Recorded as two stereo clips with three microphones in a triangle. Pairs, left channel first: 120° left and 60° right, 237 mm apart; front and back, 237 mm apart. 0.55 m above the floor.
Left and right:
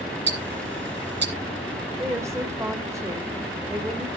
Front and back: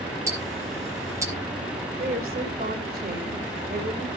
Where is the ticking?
105° right, 2.5 m.